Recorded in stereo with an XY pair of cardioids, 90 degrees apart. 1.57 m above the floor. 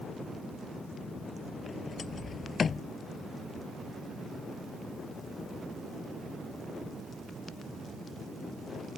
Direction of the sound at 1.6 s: 45° left.